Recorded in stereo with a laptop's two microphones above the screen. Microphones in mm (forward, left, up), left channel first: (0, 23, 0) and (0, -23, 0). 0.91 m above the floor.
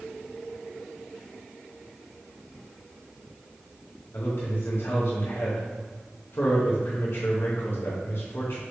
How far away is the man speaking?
About 0.9 m.